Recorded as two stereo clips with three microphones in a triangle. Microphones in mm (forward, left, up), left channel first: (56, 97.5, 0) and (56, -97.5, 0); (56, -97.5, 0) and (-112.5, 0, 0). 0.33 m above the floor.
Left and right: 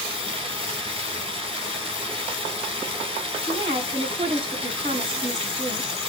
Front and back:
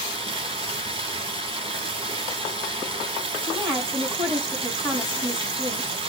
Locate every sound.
0.0 s running water: 150° right, 1.2 m
3.4 s a woman speaking: 150° right, 2 m